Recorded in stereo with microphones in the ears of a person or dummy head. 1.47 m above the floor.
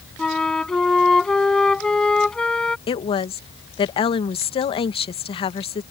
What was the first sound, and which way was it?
A flute, 5° left (ahead or behind).